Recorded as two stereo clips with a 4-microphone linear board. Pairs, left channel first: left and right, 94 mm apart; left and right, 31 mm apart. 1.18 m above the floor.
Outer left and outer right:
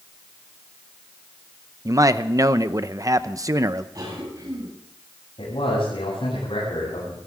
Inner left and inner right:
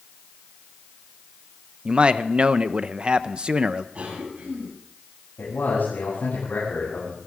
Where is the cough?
40° right (ahead or behind), 9.5 m.